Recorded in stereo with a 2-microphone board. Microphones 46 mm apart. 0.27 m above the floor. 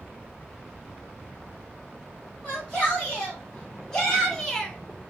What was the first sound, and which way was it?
A shout, 15° left (ahead or behind).